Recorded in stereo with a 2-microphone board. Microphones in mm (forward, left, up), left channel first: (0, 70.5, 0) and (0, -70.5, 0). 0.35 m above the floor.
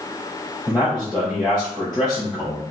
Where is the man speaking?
5° left (ahead or behind), 1.6 m.